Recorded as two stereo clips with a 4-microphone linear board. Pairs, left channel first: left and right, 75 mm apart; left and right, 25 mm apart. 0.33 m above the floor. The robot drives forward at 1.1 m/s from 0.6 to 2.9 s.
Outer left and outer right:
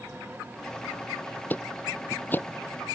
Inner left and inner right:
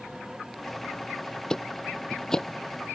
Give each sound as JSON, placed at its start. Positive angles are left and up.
{"t": 1.5, "sound": "ticking", "side_deg": 25}